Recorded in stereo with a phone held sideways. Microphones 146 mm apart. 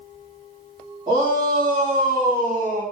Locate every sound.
1.1 s a shout: 35° right (ahead or behind), 2.5 m